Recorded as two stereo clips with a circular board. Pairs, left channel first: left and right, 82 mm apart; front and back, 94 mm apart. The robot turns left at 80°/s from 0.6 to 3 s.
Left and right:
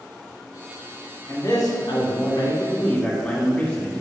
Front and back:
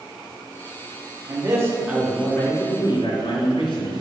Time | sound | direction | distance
1.3 | a man speaking | 150° left | 2 m